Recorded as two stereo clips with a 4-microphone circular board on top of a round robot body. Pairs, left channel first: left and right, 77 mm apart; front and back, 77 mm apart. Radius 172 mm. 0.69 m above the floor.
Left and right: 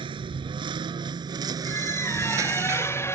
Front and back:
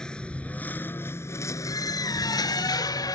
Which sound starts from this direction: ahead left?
A squeak, at 1.6 s.